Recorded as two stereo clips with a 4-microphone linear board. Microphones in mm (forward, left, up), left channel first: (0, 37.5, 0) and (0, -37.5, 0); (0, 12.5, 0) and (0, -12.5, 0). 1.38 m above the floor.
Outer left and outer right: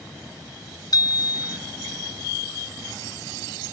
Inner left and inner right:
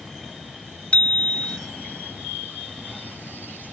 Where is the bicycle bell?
60° left (ahead or behind).